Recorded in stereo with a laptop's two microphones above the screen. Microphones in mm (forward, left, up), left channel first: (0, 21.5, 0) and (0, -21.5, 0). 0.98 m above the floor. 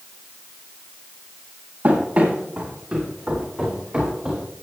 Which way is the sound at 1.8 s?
40° right (ahead or behind).